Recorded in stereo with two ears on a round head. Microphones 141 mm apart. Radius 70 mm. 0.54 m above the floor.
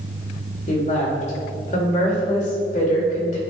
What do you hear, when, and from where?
0.7 s a woman speaking: 55° left (ahead or behind), 2.5 m